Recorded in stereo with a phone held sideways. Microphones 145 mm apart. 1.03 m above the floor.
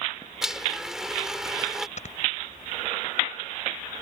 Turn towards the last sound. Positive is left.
turn(degrees=55)  # may be behind; listen again after turning